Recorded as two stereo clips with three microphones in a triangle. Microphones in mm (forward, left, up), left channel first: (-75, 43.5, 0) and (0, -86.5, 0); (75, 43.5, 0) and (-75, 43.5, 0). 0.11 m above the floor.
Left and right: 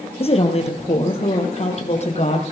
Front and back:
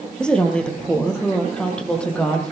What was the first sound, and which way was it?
A woman speaking, 85° left.